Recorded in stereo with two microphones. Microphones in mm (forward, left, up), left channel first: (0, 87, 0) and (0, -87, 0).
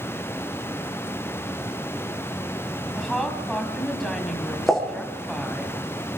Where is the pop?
Centre (ahead or behind), 7.5 m.